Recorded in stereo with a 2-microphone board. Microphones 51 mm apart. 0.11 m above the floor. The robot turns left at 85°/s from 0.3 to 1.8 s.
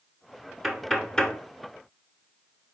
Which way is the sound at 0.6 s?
5° right (ahead or behind).